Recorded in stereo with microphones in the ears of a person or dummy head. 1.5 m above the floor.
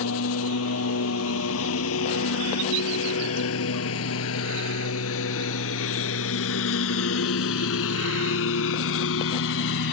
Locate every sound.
0.0 s a lawn mower: 75° left (ahead or behind); by 9.9 s 65° left (ahead or behind)